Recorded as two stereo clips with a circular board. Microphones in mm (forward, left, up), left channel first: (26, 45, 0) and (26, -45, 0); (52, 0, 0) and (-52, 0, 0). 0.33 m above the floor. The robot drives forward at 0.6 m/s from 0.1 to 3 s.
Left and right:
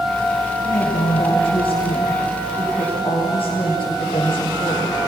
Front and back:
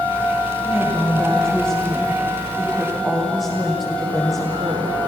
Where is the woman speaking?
85° left, 9.5 m; by 5.0 s 95° left, 9.5 m.